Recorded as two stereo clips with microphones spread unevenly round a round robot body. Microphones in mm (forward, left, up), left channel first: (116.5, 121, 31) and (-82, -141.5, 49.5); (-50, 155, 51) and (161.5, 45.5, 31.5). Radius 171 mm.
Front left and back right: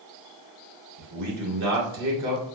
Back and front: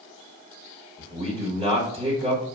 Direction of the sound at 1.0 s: 105° right.